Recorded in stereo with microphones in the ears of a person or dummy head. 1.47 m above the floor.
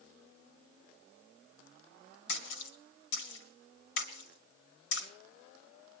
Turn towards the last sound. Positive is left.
turn(degrees=90)